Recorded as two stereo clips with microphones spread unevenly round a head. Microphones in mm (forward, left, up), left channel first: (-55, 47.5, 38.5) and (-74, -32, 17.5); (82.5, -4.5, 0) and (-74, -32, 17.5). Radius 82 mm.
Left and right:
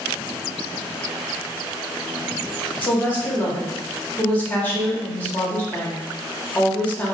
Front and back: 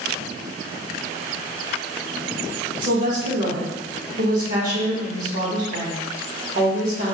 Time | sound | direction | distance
2.8 | a woman speaking | 145° left | 1.2 m